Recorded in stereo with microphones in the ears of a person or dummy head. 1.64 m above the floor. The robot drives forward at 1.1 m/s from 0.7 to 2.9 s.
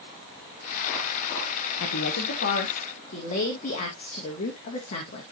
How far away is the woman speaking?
About 1.4 m.